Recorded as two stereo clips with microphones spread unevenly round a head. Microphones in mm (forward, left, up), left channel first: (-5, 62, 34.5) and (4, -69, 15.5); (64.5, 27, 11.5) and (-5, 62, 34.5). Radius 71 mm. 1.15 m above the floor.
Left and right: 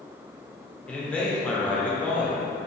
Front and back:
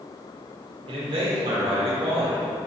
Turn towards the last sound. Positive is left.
turn(degrees=180)